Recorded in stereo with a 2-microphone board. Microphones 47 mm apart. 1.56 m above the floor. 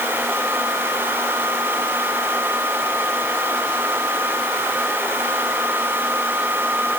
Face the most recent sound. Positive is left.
No sound to turn to.